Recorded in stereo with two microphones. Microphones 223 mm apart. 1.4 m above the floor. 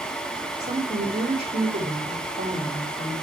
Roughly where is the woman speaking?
Right.